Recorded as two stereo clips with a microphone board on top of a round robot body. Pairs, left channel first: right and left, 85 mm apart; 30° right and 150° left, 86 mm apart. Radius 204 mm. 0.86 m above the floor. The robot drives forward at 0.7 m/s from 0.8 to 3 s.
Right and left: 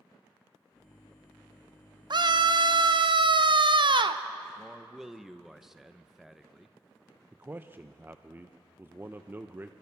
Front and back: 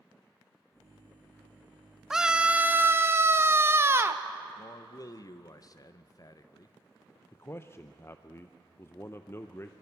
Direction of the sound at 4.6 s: 5° left.